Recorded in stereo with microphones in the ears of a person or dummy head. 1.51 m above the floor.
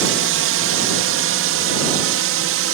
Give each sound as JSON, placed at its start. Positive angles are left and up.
{"t": 0.0, "sound": "a drone", "side_deg": -65}